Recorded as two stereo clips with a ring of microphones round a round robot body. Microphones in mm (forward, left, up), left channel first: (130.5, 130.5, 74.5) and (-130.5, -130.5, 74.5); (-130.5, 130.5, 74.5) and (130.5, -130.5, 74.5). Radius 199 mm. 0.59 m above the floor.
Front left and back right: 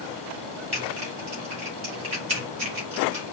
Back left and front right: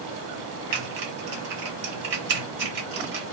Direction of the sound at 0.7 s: 60° right.